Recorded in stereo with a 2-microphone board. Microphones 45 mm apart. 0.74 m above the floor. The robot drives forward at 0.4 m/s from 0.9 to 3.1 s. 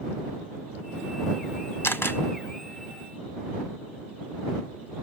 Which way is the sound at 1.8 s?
60° left (ahead or behind).